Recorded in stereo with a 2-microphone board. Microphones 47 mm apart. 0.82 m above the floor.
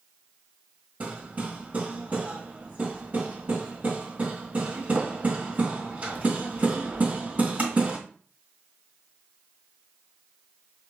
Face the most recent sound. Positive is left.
turn(degrees=-35)  # may be behind; listen again after turning